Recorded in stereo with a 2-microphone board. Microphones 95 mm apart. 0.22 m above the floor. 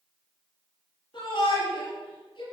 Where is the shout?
50° left (ahead or behind), 4 m.